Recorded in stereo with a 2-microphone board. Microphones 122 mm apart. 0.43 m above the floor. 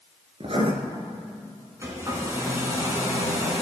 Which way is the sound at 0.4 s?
55° right (ahead or behind).